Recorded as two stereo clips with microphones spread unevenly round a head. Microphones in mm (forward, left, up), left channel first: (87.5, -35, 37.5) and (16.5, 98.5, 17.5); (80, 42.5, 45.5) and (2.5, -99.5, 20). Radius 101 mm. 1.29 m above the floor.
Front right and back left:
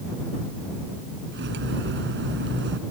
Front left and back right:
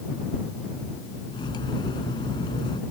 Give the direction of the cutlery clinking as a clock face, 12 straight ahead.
8 o'clock.